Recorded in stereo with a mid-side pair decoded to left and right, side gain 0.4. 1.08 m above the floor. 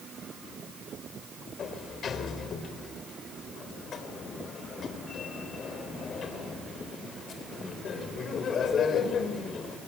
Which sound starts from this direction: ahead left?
A sliding door, at 1.6 s.